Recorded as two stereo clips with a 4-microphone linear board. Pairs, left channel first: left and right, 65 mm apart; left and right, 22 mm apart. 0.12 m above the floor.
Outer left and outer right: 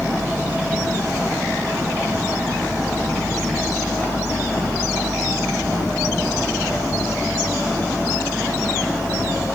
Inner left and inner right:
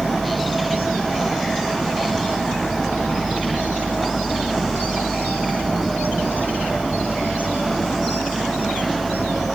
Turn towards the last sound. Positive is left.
No sound to turn to.